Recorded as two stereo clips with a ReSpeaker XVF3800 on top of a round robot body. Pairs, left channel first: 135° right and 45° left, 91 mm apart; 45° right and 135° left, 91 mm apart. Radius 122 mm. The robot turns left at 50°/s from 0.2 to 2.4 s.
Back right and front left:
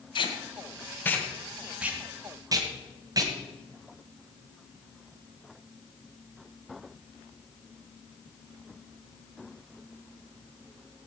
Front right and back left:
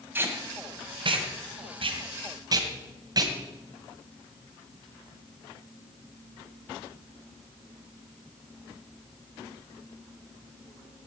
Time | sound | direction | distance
0.1 | tape being pulled | 160° right | 2.5 m